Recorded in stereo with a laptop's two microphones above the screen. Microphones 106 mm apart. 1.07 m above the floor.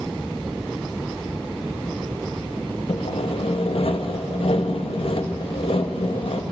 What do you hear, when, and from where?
2.9 s sawing: 65° left (ahead or behind), 0.9 m